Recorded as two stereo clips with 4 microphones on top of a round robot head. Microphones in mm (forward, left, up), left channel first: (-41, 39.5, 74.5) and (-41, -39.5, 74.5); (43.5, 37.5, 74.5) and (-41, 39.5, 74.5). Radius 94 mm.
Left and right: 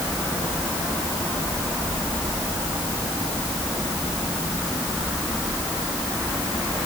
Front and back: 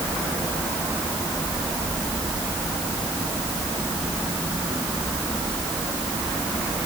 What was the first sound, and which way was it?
Only background noise.